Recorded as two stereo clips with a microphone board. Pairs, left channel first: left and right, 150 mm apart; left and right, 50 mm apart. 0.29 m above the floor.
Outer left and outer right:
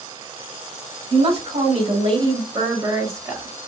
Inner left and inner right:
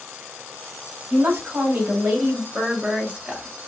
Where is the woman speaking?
45° right (ahead or behind), 2 m; by 3.5 s 15° right (ahead or behind), 1.5 m.